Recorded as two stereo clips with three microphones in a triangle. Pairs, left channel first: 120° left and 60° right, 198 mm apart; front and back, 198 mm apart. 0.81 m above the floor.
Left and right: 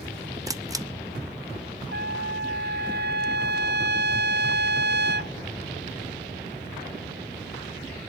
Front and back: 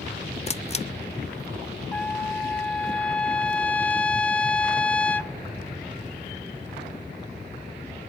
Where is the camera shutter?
5° right, 0.6 m.